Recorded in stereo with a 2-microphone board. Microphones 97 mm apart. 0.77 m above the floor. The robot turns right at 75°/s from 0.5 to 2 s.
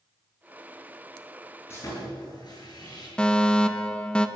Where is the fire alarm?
10° left (ahead or behind), 1.4 m.